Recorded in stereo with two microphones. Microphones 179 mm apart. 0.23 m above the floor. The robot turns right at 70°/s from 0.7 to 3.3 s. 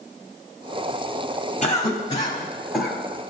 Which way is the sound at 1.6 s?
40° left (ahead or behind).